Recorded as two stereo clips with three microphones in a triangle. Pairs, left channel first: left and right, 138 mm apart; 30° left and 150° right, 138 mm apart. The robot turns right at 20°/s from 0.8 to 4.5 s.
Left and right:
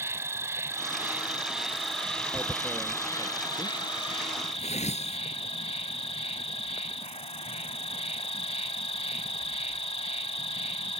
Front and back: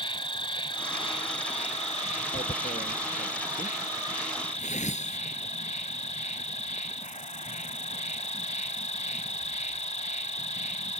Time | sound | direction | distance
0.0 | an insect | 20° right | ?
2.3 | tearing paper | 15° left | ?